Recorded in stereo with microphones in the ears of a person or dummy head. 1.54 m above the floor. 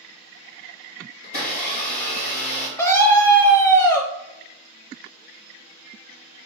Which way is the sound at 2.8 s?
15° left (ahead or behind).